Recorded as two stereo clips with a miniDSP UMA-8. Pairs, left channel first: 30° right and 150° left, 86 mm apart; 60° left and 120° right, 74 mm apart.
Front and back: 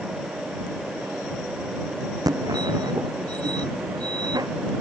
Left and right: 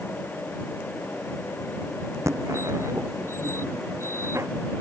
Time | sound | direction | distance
2.3 | a fire alarm | 170° right | ?